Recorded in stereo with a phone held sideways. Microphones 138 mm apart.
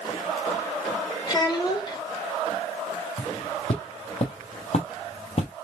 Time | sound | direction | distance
1.3 | a child speaking | 35° left (ahead or behind) | 1.6 m
3.2 | footsteps | 45° left (ahead or behind) | 1.9 m